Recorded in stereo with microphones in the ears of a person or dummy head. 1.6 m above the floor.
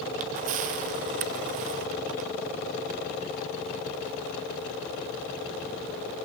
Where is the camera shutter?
35° right (ahead or behind), 0.6 m.